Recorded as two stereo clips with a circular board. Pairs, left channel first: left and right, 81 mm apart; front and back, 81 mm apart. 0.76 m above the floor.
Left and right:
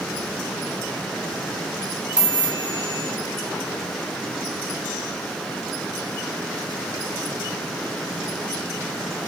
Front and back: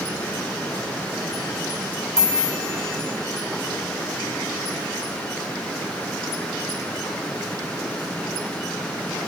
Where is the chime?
125° right, 5.5 m.